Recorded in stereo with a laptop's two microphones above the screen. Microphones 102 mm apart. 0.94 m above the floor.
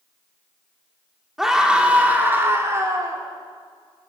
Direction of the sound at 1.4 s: 5° right (ahead or behind).